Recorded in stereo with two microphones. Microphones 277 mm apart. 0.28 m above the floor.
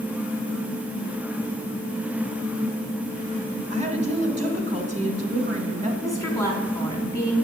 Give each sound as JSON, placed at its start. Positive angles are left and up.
{"t": 3.7, "sound": "a woman speaking", "side_deg": -25, "distance_m": 1.8}
{"t": 6.0, "sound": "a woman speaking", "side_deg": 10, "distance_m": 3.0}